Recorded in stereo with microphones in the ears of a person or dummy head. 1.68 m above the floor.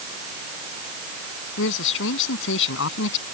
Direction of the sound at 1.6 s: 70° left (ahead or behind).